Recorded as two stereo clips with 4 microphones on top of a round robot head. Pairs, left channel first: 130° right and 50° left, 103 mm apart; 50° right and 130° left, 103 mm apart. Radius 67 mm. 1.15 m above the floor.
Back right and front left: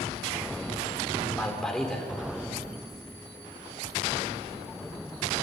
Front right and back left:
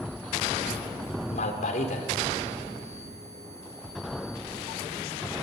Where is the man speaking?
45° right, 4.5 m.